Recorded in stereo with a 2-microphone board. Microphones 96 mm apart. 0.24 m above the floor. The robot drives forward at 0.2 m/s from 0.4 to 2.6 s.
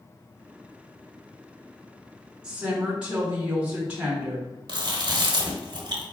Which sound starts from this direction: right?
Chewing, at 4.7 s.